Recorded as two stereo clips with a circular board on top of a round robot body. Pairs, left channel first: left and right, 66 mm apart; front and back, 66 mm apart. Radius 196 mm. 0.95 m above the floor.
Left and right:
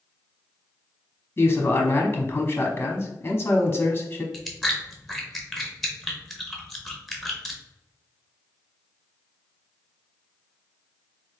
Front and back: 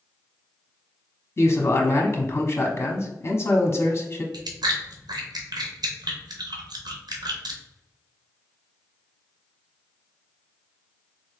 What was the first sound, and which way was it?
A man speaking, 40° left.